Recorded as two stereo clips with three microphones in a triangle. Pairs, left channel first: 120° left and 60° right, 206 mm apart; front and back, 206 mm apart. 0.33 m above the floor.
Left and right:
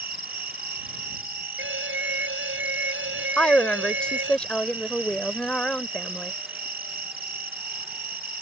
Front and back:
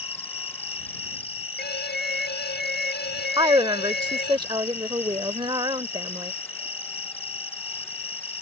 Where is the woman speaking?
160° right.